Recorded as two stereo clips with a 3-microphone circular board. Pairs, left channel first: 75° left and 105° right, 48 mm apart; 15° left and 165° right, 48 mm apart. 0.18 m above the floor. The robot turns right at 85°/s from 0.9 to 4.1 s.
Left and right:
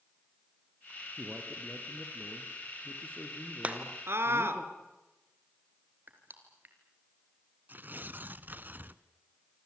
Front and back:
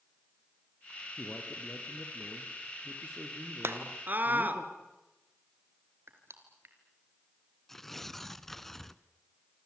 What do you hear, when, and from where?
1.2 s a man speaking: 45° right, 4 m; by 4.6 s 160° right, 4 m
3.6 s a scream: 160° right, 2.5 m; by 4.6 s 120° right, 2.5 m
6.1 s crushing: 145° right, 3.5 m
7.7 s tearing paper: 65° right, 0.7 m